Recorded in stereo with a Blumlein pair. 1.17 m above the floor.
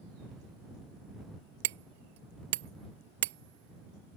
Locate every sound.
1.6 s hammering: 55° right